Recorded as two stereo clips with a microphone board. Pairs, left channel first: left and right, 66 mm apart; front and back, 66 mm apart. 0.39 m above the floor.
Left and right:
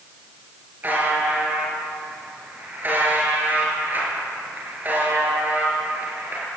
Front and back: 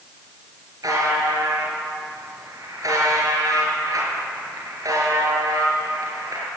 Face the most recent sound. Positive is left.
turn(degrees=-150)